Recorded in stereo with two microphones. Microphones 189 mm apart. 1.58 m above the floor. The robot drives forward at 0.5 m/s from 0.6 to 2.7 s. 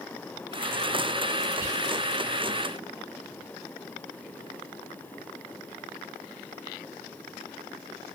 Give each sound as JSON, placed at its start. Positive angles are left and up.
{"t": 1.6, "sound": "whispering", "side_deg": -50, "distance_m": 2.5}